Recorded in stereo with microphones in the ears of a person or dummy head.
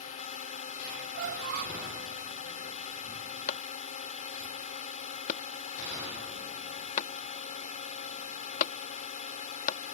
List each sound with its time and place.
0.0 s a drone: 40° left (ahead or behind)
1.1 s a squeak: 55° right (ahead or behind)
3.5 s a clap: 50° left (ahead or behind)